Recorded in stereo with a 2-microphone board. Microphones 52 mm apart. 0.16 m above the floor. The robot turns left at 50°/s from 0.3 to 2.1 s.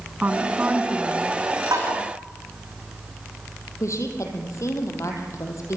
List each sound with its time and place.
0.2 s a woman speaking: 90° right, 1.7 m; by 1.4 s 145° right, 1.7 m
1.7 s tapping: 85° right, 6 m; by 1.9 s 80° right, 6 m
3.8 s a woman speaking: 60° left (ahead or behind), 4.5 m